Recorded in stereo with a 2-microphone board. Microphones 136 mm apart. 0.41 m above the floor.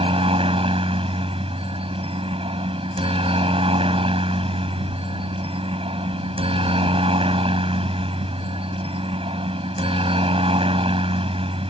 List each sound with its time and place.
0.0 s a helicopter: 45° right (ahead or behind)